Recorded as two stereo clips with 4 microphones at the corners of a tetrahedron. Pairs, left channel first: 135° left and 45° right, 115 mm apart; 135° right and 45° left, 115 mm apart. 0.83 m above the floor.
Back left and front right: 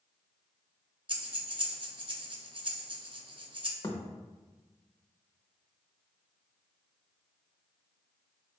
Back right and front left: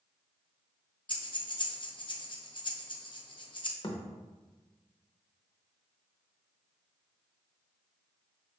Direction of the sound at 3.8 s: 170° right.